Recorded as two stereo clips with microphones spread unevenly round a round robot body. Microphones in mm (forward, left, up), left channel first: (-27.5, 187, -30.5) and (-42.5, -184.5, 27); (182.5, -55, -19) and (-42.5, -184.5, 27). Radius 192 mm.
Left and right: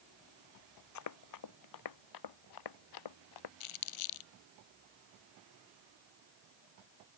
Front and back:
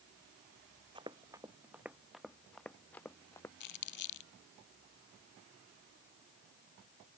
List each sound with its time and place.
0.9 s running footsteps: 135° left; by 3.5 s 115° left
3.6 s crumpling: 75° left